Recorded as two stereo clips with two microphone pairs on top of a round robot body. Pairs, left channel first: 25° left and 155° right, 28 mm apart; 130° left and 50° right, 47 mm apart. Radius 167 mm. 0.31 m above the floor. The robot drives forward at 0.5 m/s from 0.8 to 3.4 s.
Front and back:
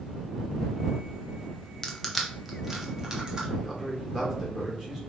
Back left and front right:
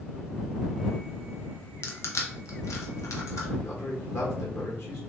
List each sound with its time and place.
1.8 s crushing: 95° left, 0.8 m; by 3.5 s 140° left, 1.2 m
3.6 s a man speaking: 145° left, 1.8 m